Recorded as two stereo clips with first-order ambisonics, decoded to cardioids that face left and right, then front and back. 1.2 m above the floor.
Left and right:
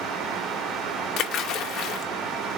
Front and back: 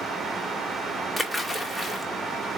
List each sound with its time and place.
1.2 s a splash: 90° left, 0.7 m